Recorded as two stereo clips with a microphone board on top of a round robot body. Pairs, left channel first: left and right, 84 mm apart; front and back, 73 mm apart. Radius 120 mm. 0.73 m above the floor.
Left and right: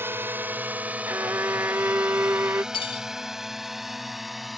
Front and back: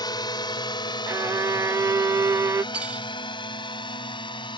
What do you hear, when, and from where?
0.0 s a drone: 25° right; by 4.6 s straight ahead
1.1 s a violin: 145° right
2.7 s cutlery clinking: 105° left